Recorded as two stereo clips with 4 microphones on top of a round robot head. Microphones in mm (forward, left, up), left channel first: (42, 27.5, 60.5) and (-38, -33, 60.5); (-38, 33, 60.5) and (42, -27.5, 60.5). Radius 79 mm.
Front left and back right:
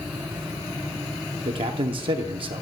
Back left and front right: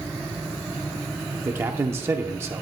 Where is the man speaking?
105° right, 0.7 m.